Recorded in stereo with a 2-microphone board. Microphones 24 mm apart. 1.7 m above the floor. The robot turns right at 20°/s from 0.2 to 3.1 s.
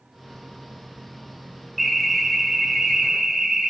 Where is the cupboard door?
No cupboard door in this recording.